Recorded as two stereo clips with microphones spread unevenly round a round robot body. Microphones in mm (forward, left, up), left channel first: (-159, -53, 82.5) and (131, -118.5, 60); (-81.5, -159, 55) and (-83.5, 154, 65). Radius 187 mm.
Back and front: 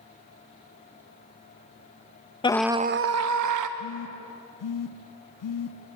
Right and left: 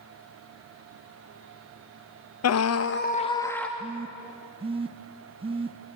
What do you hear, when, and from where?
2.4 s a scream: 115° right, 0.7 m; by 3.7 s 5° right, 1.2 m
3.8 s a phone buzzing: 165° left, 0.9 m